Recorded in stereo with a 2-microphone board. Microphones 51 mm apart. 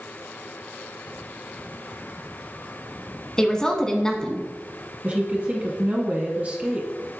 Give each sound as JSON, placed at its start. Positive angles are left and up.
{"t": 3.4, "sound": "a woman speaking", "side_deg": 15, "distance_m": 1.1}
{"t": 5.0, "sound": "a woman speaking", "side_deg": -30, "distance_m": 1.2}